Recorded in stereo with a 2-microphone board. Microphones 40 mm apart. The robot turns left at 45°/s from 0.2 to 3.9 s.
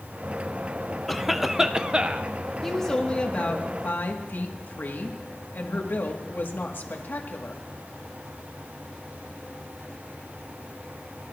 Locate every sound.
1.1 s a cough: 5° left, 0.6 m; by 2.3 s 50° right, 0.6 m
2.6 s a woman speaking: 175° left, 1.5 m; by 7.6 s 120° left, 1.5 m